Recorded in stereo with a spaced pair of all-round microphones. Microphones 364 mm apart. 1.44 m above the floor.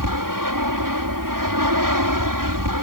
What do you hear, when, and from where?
0.0 s an aircraft: 60° right (ahead or behind)